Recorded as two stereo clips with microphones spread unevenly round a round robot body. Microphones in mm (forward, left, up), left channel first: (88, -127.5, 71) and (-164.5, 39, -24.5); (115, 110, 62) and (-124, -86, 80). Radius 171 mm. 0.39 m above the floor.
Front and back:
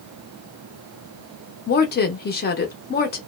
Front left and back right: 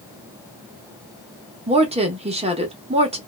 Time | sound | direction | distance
1.7 | a woman speaking | 90° right | 0.8 m